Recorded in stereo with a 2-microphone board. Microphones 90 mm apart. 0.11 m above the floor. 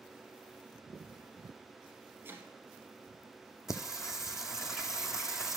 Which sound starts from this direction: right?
Chopping, at 2.2 s.